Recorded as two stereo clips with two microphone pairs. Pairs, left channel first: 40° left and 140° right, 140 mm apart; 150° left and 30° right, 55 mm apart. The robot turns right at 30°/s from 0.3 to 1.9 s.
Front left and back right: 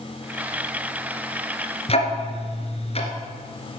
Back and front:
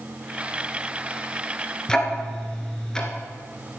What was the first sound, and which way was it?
Ticking, 75° left.